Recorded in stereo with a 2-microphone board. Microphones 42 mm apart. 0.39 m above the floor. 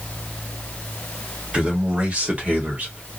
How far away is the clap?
No clap in this recording.